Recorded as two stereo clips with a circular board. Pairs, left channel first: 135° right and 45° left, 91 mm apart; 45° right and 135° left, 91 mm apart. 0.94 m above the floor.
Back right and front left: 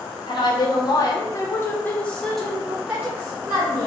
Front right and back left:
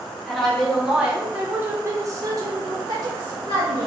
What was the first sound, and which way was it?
A woman speaking, 130° right.